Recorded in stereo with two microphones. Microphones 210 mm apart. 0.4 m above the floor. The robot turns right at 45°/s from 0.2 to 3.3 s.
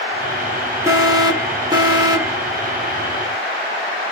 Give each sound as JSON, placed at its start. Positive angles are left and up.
{"t": 0.9, "sound": "an alarm", "side_deg": -15, "distance_m": 0.8}